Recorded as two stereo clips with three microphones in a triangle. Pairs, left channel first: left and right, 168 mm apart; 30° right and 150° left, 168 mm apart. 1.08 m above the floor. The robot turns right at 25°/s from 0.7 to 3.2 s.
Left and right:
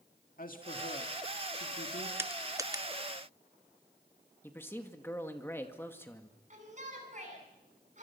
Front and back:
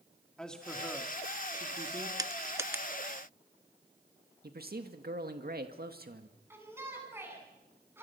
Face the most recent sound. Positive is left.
turn(degrees=-135)